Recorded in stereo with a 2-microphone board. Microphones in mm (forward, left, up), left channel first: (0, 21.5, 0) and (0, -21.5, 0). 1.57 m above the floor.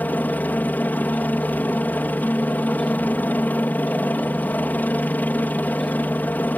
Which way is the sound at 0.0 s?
40° left (ahead or behind).